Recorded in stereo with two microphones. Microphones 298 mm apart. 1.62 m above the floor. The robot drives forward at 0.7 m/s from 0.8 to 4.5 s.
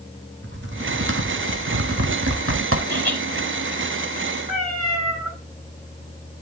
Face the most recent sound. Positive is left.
turn(degrees=-25)  # may be behind; listen again after turning